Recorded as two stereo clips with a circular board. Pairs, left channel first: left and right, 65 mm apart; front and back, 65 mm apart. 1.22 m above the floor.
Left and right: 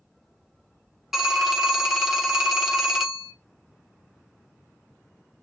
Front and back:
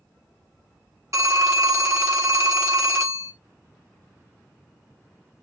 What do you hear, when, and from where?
1.1 s a phone ringing: 175° right, 0.8 m